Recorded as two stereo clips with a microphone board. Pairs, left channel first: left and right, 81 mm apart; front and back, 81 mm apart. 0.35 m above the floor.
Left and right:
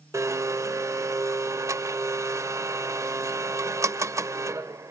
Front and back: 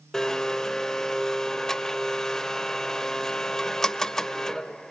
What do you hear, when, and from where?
0.1 s a blender: 80° right, 0.7 m